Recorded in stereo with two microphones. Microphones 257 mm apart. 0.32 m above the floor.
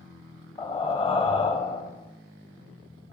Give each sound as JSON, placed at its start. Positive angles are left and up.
{"t": 0.6, "sound": "breathing", "side_deg": 20, "distance_m": 0.7}